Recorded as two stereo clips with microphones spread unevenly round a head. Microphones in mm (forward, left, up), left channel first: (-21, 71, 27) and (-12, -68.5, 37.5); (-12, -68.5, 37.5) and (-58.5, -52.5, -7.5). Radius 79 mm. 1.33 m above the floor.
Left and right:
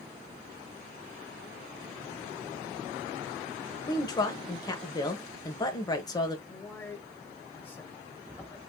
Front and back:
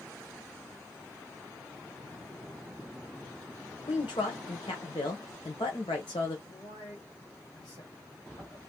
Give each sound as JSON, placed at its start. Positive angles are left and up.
{"t": 3.9, "sound": "a woman speaking", "azimuth_deg": 35, "distance_m": 1.1}
{"t": 6.5, "sound": "a man speaking", "azimuth_deg": 15, "distance_m": 1.7}